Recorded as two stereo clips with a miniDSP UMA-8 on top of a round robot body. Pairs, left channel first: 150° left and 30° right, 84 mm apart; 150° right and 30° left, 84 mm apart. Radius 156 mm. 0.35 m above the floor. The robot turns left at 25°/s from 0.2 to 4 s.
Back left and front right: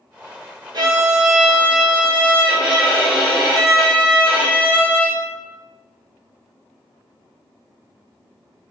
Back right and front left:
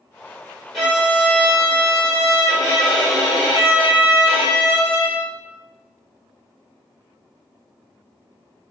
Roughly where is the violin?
Ahead right.